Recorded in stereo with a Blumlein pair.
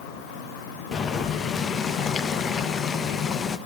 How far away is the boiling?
About 1.2 m.